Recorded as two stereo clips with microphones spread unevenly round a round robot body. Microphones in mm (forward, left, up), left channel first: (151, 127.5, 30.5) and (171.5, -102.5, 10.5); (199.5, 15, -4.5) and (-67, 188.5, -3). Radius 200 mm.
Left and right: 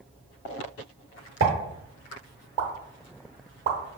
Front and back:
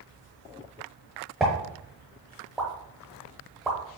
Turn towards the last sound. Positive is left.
turn(degrees=-125)